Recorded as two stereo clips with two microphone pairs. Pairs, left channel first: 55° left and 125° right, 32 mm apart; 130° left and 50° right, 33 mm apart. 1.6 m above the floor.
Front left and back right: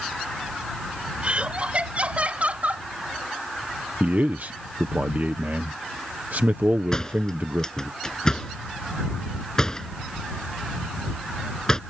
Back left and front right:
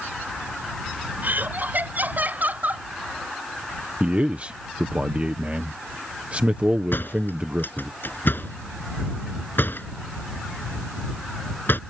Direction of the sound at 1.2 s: 75° right.